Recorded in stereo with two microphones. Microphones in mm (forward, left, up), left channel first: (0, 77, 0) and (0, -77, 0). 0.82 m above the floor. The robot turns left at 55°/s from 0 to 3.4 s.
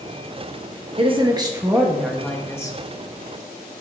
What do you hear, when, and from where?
1.0 s a woman speaking: 115° right, 1.2 m; by 2.8 s 145° left, 1.2 m